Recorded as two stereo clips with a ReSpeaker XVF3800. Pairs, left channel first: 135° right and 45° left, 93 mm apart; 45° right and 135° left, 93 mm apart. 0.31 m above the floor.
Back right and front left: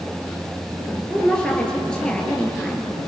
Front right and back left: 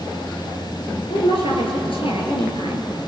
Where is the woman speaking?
55° right, 4.5 m.